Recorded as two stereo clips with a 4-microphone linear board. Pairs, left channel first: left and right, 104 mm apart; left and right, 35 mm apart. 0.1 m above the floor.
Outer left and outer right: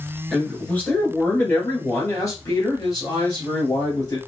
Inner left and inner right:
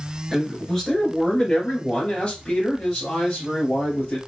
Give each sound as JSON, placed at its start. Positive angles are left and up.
{"t": 0.3, "sound": "a man speaking", "side_deg": 10, "distance_m": 1.6}